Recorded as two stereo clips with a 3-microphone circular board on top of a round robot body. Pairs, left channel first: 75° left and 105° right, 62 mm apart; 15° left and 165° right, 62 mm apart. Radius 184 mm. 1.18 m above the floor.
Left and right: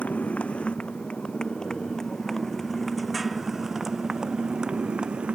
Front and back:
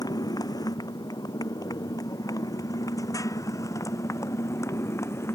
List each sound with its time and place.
0.0 s a motorcycle: 5° left; by 5.3 s 30° right